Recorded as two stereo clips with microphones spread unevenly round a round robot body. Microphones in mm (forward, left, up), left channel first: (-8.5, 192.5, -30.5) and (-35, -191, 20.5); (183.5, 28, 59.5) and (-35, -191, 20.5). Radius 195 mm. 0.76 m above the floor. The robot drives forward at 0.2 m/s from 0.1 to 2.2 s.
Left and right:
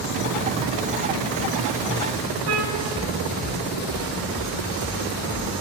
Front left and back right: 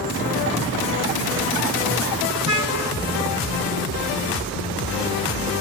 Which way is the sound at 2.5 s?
70° right.